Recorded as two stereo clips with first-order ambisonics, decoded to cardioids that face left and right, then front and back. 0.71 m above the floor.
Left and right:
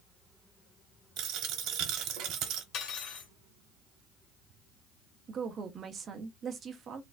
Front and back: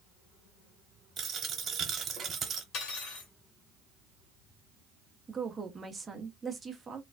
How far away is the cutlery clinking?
About 1.1 m.